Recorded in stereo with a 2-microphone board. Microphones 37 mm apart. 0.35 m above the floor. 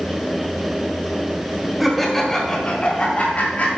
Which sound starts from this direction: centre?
Laughter, at 1.8 s.